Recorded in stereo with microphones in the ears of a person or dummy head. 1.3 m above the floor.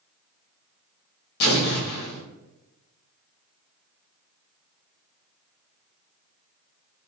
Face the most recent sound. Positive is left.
turn(degrees=60)  # may be behind; listen again after turning